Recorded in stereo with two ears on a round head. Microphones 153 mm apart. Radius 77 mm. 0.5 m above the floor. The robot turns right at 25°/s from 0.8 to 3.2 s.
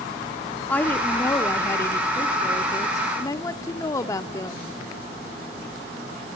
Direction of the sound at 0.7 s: 10° left (ahead or behind).